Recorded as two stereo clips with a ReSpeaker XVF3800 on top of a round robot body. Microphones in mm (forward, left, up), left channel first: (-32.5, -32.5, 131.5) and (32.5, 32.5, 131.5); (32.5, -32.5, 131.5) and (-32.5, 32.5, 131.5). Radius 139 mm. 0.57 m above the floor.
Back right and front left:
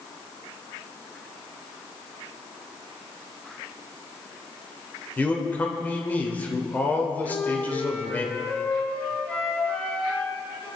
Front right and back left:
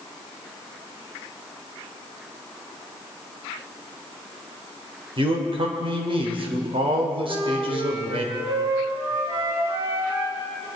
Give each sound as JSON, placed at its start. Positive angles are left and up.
{"t": 5.2, "sound": "a man speaking", "azimuth_deg": 155, "distance_m": 3.0}
{"t": 7.2, "sound": "a flute", "azimuth_deg": 155, "distance_m": 6.5}